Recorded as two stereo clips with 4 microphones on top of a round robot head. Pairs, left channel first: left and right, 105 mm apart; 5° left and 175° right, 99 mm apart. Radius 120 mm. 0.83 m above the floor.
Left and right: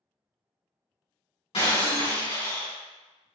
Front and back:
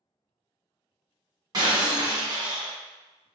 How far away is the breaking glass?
About 1.6 m.